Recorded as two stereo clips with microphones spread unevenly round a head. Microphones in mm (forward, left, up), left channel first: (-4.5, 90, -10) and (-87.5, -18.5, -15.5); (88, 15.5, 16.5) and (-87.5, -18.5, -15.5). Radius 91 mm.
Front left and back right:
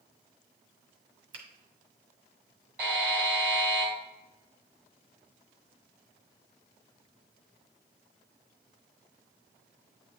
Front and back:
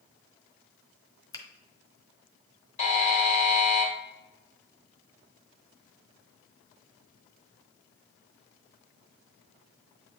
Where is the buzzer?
45° right, 1.8 m.